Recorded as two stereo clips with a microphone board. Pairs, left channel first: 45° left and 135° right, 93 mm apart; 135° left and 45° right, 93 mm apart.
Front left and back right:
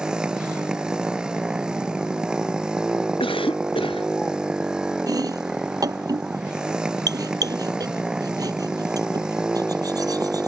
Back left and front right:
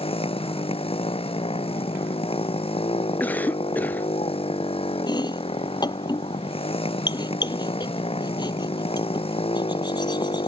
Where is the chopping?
175° left.